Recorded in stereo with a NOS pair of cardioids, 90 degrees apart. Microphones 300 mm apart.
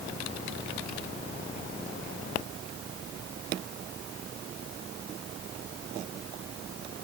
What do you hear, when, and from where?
Only background noise.